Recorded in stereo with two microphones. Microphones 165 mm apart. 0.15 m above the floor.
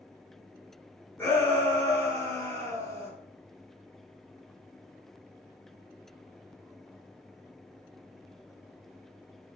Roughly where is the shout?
Centre.